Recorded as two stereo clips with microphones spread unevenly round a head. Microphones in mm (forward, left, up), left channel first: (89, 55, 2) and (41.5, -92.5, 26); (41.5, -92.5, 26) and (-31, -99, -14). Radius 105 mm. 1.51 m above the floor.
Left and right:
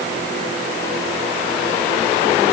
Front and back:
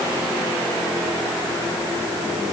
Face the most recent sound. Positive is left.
No sound to turn to.